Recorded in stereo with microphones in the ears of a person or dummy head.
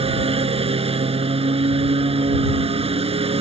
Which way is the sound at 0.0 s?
30° right (ahead or behind).